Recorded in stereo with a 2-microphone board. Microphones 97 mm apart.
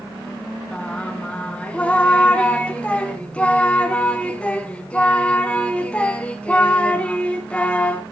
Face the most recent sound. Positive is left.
turn(degrees=10)  # may be behind; listen again after turning